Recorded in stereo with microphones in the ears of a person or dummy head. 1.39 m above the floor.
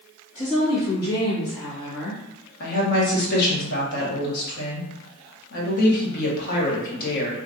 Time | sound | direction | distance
0.3 | a woman speaking | 40° left (ahead or behind) | 1.5 m
2.6 | a woman speaking | 55° left (ahead or behind) | 1.1 m